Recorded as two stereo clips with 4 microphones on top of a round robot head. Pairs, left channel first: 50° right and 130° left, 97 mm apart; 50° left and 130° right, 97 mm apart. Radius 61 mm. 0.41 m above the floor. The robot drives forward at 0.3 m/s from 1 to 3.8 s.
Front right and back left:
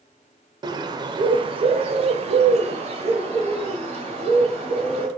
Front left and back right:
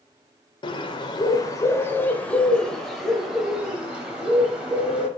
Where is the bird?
90° left, 0.6 m; by 5.1 s 150° left, 1.0 m.